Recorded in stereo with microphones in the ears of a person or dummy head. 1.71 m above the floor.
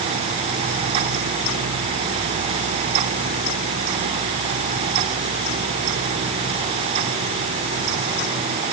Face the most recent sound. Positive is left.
No sound to turn to.